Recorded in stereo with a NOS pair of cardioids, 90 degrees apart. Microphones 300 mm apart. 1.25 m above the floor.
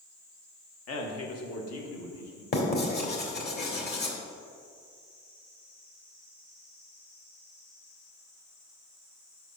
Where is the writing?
35° left, 1.8 m.